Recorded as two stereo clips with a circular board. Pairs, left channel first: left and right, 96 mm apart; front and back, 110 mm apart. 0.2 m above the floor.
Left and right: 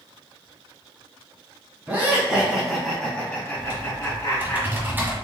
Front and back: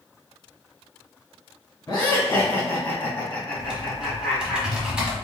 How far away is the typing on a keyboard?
About 1.3 m.